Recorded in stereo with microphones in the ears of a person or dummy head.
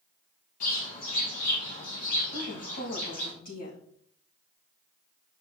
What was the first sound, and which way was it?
A bird, 50° left (ahead or behind).